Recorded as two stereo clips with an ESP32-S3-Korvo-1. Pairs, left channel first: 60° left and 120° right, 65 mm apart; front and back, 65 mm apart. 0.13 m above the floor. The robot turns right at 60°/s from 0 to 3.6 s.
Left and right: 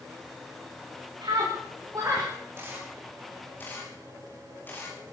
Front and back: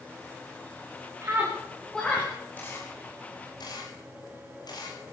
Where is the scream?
125° right, 9.5 m; by 2.3 s 60° right, 9.5 m.